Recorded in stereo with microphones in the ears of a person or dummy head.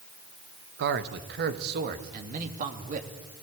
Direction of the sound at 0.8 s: 65° right (ahead or behind).